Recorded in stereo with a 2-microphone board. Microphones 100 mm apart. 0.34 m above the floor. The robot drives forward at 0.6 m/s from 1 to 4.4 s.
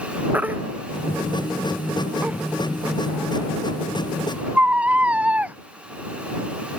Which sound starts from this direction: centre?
A baby crying, at 0.3 s.